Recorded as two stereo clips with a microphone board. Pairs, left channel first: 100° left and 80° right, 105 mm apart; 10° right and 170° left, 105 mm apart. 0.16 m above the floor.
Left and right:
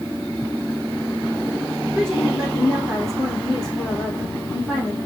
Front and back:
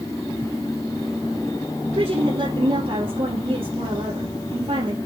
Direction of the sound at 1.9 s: 170° right.